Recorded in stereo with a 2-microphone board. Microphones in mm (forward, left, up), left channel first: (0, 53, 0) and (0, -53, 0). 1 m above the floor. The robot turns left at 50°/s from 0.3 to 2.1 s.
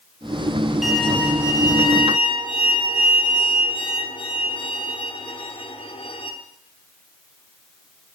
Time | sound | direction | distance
0.8 | a violin | 175° right | 1.8 m